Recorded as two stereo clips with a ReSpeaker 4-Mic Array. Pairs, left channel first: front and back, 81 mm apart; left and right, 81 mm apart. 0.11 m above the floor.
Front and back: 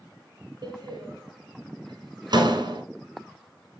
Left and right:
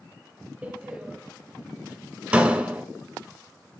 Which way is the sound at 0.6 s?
165° right.